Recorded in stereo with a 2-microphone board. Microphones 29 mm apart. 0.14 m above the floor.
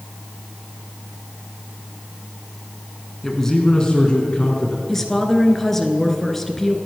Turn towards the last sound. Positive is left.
turn(degrees=10)  # may be behind; listen again after turning